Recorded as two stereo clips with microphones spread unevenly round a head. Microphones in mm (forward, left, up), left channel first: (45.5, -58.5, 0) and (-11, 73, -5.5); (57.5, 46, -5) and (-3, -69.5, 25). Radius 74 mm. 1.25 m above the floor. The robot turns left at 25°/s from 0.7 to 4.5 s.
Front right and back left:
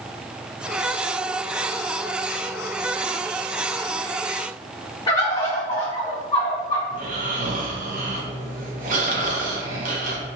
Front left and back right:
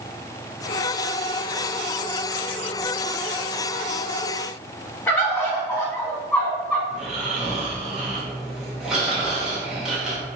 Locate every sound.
5.1 s a bird: 15° right, 1.2 m
6.9 s snoring: 155° left, 0.8 m